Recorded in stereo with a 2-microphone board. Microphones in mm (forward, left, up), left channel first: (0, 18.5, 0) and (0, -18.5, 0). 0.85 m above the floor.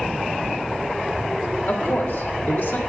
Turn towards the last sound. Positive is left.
turn(degrees=65)  # may be behind; listen again after turning